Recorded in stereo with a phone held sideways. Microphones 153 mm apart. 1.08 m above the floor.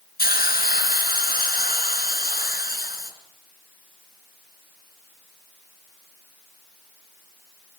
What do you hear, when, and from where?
0.2 s a hiss: 80° left, 3.5 m